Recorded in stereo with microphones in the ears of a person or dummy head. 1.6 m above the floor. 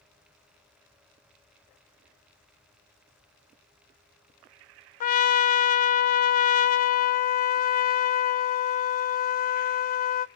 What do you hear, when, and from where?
5.0 s a trumpet: 45° left (ahead or behind), 0.7 m